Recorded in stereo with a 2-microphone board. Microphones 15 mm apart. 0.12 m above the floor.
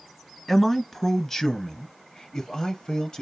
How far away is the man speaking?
About 1.5 m.